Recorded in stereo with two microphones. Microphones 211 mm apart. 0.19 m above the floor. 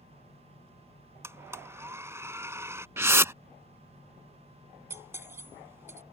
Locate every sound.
1.2 s a blender: 15° right (ahead or behind)
3.0 s a whoosh: 15° right (ahead or behind)
4.9 s cutlery clinking: 15° right (ahead or behind)